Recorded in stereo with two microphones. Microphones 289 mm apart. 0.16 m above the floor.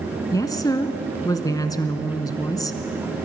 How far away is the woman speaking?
About 1.4 m.